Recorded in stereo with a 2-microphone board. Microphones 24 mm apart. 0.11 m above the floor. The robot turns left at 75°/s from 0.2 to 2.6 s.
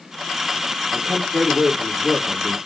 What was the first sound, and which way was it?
A man speaking, 135° right.